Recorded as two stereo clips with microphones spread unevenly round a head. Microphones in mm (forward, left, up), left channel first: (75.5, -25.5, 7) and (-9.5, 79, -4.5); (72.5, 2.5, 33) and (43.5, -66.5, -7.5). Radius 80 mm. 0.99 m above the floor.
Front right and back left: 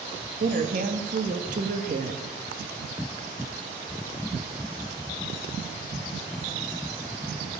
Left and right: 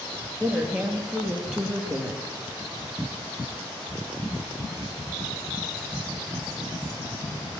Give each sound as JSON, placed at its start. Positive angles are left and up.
{"t": 0.4, "sound": "a woman speaking", "azimuth_deg": 170, "distance_m": 1.2}